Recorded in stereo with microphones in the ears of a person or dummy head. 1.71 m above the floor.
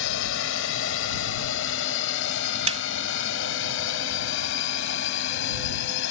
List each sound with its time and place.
0.0 s a drone: 80° left; by 6.1 s 75° left (ahead or behind)
2.7 s a snare drum: 40° right (ahead or behind)